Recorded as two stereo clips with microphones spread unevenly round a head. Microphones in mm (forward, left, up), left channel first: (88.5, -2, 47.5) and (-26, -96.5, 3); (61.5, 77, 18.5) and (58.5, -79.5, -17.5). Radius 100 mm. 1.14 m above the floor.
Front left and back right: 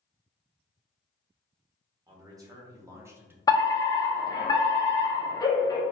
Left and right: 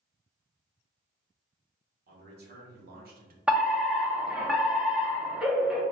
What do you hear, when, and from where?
2.1 s a man speaking: 75° right, 1.7 m; by 3.4 s 65° right, 0.9 m
3.5 s a fire alarm: 35° right, 1.0 m